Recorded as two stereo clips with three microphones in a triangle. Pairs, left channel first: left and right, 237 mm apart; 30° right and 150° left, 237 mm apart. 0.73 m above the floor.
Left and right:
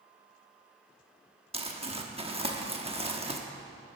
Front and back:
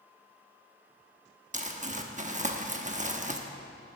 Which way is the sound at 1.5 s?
150° right.